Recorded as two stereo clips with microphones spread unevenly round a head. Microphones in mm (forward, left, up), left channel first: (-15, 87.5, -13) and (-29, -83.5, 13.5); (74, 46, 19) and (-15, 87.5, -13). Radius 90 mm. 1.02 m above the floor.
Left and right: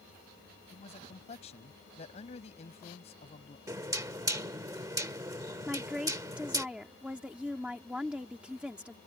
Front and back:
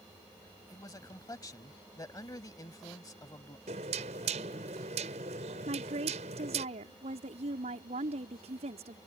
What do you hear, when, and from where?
0.7 s a man speaking: 25° left
3.7 s knocking: 165° right
5.7 s a woman speaking: straight behind